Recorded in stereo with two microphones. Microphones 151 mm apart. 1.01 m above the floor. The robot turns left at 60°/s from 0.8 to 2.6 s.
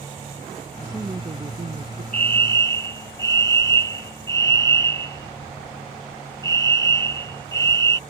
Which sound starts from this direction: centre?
A fire alarm, at 2.1 s.